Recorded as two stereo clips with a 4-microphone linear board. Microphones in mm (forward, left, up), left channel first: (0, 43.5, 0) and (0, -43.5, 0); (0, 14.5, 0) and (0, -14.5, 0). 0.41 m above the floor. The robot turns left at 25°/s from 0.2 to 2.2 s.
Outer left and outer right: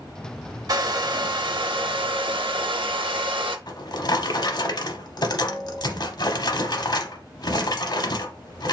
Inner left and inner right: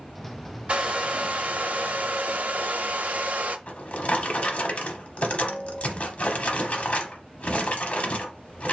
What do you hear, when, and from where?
0.7 s a hair dryer: 50° right, 0.6 m; by 3.6 s 85° right, 0.6 m
3.7 s a drawer: 50° left (ahead or behind), 0.7 m